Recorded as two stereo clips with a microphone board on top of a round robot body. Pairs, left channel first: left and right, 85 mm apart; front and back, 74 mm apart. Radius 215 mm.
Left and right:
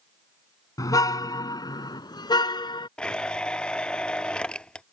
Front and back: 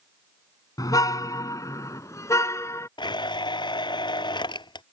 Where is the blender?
10° left.